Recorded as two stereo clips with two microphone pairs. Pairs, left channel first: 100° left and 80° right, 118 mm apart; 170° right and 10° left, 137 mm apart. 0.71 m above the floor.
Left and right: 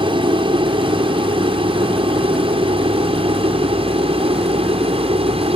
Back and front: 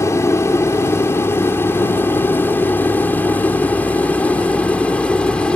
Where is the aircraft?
105° right; by 5.6 s 90° right.